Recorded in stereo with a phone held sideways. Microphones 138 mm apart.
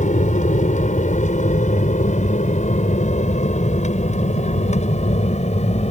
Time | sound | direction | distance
0.0 | an aircraft | 65° left (ahead or behind) | ?